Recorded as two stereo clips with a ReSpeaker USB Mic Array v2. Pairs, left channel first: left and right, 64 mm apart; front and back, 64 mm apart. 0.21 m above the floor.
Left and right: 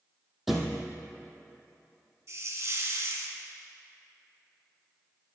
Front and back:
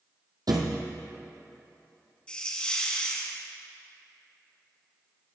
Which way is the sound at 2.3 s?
70° right.